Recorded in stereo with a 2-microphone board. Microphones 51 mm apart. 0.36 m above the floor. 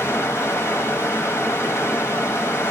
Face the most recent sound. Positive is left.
turn(degrees=55)  # may be behind; listen again after turning